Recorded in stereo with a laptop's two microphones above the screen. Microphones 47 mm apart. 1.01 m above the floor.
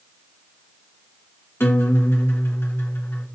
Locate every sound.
1.6 s a guitar: 55° left (ahead or behind), 1.1 m